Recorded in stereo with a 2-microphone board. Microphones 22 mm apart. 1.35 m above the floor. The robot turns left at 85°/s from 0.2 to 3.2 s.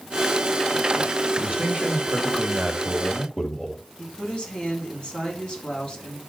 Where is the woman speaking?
45° left (ahead or behind), 4.5 m.